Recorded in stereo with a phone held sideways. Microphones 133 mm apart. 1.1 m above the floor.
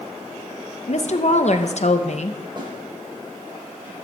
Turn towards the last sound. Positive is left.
turn(degrees=-35)  # may be behind; listen again after turning